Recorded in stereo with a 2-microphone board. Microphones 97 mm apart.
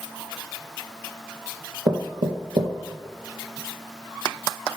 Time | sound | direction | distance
1.9 | knocking | 50° right (ahead or behind) | 1.8 m